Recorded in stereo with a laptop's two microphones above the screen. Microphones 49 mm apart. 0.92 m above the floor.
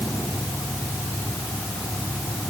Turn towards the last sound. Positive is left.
No sound to turn to.